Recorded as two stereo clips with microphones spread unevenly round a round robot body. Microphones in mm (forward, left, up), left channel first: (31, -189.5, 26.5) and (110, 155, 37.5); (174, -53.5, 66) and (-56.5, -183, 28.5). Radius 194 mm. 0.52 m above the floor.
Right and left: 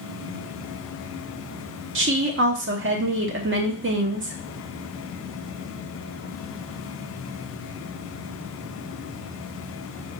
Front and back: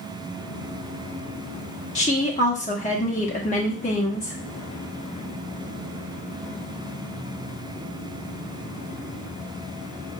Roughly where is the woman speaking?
Left.